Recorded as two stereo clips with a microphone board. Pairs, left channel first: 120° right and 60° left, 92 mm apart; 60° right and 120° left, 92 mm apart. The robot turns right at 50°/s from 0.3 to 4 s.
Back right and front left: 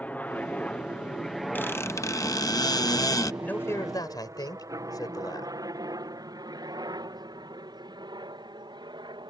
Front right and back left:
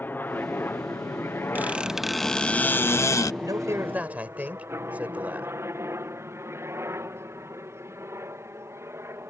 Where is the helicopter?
75° right; by 9.3 s 65° left.